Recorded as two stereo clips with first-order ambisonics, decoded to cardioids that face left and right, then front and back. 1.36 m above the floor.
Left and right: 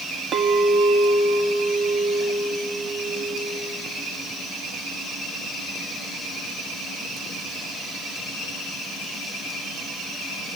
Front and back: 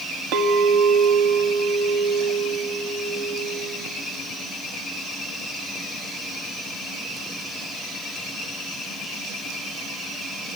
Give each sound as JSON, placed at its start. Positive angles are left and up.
{"t": 0.3, "sound": "a clink", "azimuth_deg": -150, "distance_m": 1.6}